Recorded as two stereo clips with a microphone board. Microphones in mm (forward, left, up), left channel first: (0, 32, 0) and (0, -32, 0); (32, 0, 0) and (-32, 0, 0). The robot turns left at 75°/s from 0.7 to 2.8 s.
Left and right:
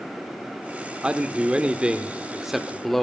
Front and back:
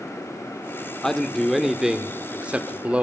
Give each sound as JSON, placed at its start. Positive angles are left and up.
{"t": 1.0, "sound": "a man speaking", "azimuth_deg": -60, "distance_m": 0.9}